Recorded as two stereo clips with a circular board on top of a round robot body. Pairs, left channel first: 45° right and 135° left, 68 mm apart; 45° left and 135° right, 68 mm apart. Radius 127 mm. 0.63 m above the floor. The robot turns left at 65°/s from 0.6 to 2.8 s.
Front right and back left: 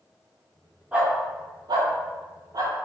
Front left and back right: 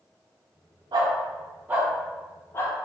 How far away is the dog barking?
About 0.8 m.